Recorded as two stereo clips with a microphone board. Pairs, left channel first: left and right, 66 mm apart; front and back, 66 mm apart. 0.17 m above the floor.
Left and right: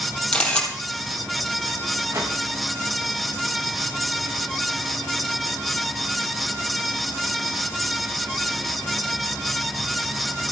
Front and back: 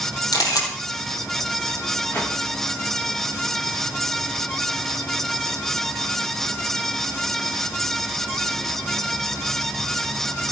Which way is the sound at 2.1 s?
60° right.